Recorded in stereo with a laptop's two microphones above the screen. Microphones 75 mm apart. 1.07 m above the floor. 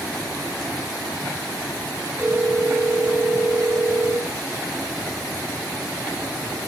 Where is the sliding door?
No sliding door in this recording.